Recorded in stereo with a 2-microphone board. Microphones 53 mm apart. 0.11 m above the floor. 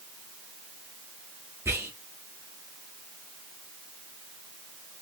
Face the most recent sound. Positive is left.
turn(degrees=-45)  # may be behind; listen again after turning